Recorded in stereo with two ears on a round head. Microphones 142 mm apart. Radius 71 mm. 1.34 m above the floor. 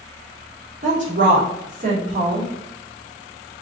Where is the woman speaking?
50° right (ahead or behind), 2 m.